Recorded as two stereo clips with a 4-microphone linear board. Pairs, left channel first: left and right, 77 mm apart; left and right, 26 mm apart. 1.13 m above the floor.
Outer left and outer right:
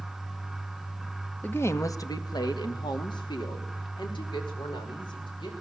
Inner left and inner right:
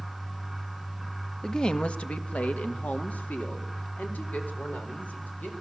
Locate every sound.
1.4 s a woman speaking: 20° left (ahead or behind), 1.0 m; by 5.5 s 85° left, 5 m